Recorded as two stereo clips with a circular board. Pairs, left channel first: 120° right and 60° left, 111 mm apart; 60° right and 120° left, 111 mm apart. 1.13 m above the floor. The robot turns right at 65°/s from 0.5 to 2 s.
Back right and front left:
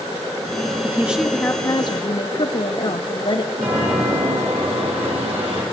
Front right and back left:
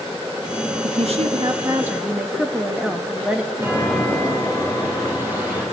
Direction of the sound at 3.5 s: 50° left.